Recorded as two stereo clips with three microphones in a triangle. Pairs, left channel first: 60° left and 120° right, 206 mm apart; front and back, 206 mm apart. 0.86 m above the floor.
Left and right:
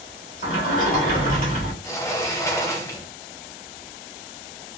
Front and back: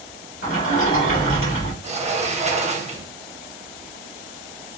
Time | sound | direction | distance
0.4 | a sliding door | 10° left | 1.8 m
1.8 | a sliding door | 130° left | 0.7 m